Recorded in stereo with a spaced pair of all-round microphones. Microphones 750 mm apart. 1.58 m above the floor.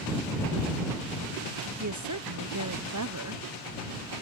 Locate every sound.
1.8 s a woman speaking: 25° right (ahead or behind)